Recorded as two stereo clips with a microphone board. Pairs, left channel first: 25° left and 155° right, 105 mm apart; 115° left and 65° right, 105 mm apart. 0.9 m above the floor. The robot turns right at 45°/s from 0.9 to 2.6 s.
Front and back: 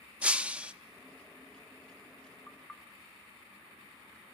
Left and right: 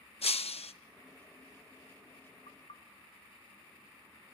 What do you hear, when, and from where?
0.2 s breaking glass: 125° left, 0.6 m
2.5 s knocking: 100° left, 0.7 m; by 2.8 s 105° left, 0.7 m